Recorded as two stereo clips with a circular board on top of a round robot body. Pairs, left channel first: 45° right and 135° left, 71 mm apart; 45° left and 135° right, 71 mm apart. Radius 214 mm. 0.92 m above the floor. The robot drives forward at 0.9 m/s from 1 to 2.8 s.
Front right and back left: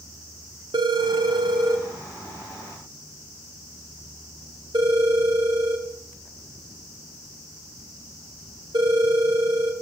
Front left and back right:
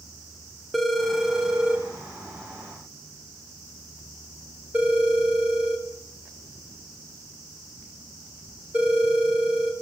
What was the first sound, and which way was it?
A phone ringing, 135° left.